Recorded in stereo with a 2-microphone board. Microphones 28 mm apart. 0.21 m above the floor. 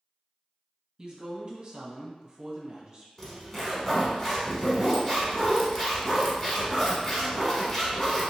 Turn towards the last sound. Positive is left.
turn(degrees=20)  # may be behind; listen again after turning